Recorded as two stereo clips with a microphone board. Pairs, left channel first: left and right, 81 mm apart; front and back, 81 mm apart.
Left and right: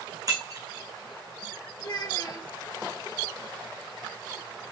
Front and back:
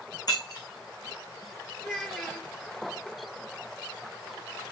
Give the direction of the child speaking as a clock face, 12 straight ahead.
9 o'clock.